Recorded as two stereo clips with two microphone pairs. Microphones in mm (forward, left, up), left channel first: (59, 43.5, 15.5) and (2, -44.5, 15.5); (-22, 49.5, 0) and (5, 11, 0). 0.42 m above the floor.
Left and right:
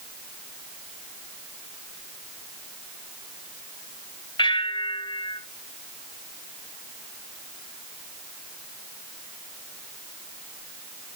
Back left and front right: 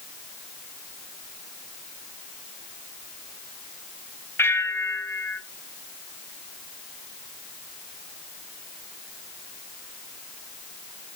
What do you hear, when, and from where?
4.4 s a bell: 95° left, 0.8 m